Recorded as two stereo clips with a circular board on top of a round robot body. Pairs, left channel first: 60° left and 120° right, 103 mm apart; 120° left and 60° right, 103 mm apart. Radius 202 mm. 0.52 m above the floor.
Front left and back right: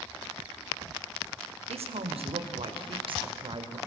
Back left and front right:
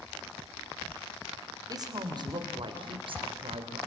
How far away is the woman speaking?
About 2.5 m.